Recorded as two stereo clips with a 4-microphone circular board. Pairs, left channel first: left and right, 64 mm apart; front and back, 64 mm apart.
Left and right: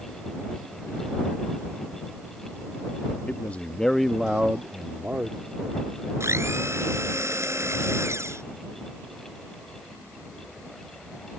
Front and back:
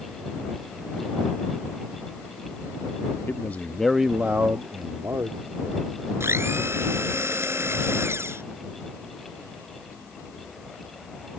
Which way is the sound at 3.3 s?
40° left.